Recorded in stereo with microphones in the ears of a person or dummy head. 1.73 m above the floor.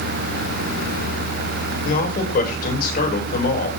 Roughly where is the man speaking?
Left.